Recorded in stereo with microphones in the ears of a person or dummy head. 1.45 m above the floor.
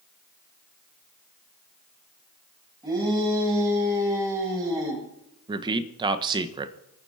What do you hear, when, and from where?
2.8 s a shout: 25° right (ahead or behind), 8.5 m; by 5.0 s 20° right (ahead or behind), 7.5 m
5.5 s a man speaking: 30° right (ahead or behind), 1.4 m